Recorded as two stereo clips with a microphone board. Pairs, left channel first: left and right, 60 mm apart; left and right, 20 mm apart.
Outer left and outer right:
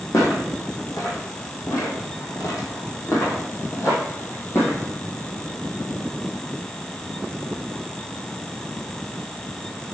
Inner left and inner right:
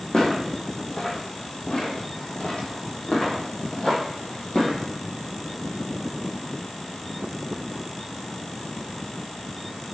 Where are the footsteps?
65° left (ahead or behind), 3 m; by 4.9 s 50° left (ahead or behind), 3.5 m.